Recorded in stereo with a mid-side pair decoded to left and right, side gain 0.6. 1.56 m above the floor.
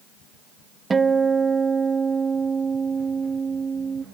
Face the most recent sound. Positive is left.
turn(degrees=-25)